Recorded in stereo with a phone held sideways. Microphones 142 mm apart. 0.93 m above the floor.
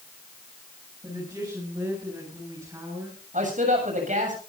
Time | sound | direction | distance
1.0 | a woman speaking | 25° right (ahead or behind) | 8 m
3.3 | a man speaking | 60° right (ahead or behind) | 7 m